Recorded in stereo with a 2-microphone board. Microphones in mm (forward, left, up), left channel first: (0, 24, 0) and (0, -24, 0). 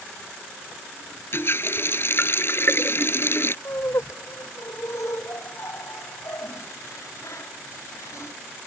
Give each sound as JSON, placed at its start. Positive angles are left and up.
{"t": 1.3, "sound": "a running tap", "side_deg": 50}
{"t": 3.6, "sound": "laughter", "side_deg": 80}